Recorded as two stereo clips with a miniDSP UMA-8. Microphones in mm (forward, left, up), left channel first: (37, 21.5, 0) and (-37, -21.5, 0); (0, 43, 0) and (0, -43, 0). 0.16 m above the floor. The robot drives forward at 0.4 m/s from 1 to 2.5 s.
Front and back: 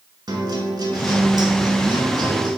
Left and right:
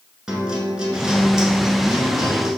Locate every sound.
0.3 s a guitar: 170° right, 0.9 m; by 2.5 s 175° right, 1.5 m